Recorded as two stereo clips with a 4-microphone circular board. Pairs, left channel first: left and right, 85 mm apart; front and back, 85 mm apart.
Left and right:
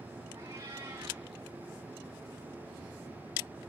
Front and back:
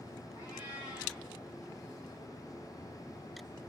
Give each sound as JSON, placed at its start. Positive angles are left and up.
{"t": 0.4, "sound": "a cat meowing", "azimuth_deg": -125, "distance_m": 5.5}